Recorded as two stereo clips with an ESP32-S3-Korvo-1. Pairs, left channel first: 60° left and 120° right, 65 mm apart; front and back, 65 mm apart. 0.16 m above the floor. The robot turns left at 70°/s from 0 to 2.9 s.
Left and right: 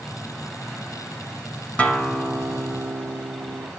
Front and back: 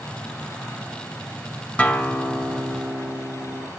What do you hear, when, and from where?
1.8 s a guitar: 25° left, 1.1 m; by 3.7 s 55° right, 1.1 m